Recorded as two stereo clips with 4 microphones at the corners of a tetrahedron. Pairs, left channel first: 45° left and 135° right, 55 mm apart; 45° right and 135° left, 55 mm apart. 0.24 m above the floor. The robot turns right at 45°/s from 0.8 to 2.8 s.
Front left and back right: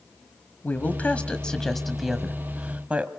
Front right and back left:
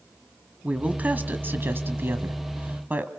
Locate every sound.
0.6 s a woman speaking: 80° left, 1.2 m; by 3.1 s 170° left, 1.2 m